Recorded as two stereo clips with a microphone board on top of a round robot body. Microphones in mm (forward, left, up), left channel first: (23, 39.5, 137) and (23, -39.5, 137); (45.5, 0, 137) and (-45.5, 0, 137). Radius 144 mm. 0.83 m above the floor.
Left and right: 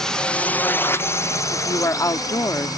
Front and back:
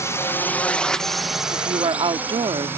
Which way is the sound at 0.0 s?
15° left.